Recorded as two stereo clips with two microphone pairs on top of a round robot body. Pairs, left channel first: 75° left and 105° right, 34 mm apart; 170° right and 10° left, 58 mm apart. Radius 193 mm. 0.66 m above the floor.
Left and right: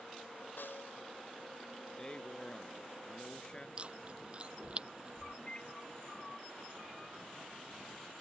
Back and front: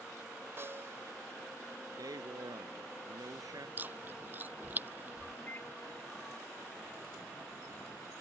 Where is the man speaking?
10° left.